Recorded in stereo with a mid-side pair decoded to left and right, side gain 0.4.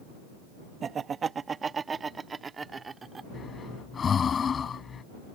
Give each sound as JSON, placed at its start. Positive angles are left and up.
{"t": 0.8, "sound": "laughter", "azimuth_deg": -55}
{"t": 3.3, "sound": "breathing", "azimuth_deg": 50}